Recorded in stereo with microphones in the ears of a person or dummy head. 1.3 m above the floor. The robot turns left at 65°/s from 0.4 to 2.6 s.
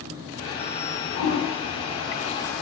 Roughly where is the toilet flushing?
Left.